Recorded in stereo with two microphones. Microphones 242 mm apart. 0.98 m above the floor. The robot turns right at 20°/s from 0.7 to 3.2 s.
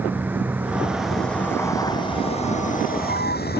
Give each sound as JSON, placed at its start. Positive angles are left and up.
{"t": 0.0, "sound": "a vehicle", "azimuth_deg": -10}